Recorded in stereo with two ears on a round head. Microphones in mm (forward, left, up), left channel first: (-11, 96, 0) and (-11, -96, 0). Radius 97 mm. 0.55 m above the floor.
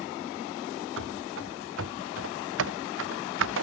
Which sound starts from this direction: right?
Running footsteps, at 1.0 s.